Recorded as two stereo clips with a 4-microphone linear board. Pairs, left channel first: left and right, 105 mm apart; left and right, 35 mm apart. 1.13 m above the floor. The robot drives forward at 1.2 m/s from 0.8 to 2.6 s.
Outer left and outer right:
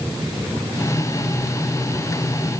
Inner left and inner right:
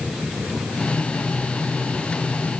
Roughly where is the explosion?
I don't hear an explosion.